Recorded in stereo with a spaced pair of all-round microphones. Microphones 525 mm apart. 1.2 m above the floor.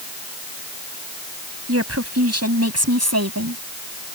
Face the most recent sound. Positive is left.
turn(degrees=-30)  # may be behind; listen again after turning